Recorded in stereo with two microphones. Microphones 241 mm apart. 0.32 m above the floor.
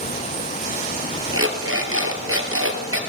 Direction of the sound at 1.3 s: 60° right (ahead or behind).